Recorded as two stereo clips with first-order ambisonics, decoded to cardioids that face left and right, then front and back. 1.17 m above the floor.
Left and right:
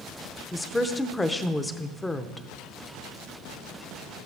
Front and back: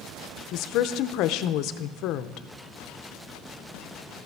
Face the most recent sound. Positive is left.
turn(degrees=10)